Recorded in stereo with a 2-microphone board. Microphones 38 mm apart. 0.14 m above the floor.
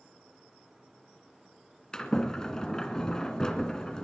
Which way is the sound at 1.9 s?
20° left (ahead or behind).